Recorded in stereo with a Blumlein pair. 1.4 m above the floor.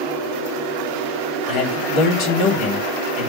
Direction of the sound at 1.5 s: 45° left.